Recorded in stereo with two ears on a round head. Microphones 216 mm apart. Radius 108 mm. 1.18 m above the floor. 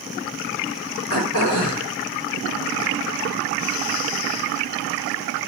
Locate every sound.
1.1 s throat clearing: 65° left (ahead or behind), 4.5 m